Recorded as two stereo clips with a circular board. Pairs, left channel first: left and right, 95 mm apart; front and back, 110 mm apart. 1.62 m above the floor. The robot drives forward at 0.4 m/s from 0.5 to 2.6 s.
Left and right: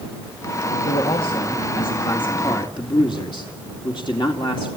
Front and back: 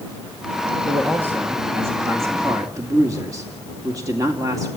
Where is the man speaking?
105° left, 2 m; by 4.7 s 120° left, 2.5 m.